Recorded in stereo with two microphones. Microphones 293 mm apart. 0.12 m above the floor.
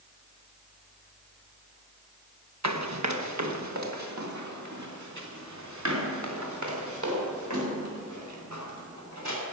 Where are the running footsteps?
65° right (ahead or behind), 1.6 m; by 9.4 s 75° right (ahead or behind), 7 m.